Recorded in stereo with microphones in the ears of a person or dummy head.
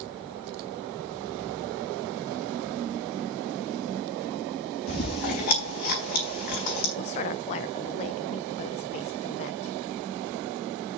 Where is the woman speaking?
30° left (ahead or behind), 0.7 m.